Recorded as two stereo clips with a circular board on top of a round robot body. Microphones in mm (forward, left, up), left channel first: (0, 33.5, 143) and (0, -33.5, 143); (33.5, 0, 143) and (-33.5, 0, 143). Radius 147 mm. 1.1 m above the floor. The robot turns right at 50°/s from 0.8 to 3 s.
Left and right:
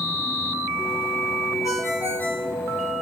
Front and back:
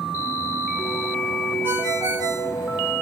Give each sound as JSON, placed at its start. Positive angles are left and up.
{"t": 1.6, "sound": "a ringtone", "azimuth_deg": 125, "distance_m": 4.5}